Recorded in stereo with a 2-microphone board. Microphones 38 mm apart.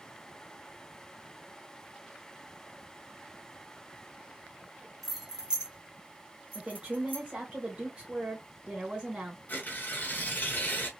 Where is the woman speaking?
25° right (ahead or behind), 1.5 m.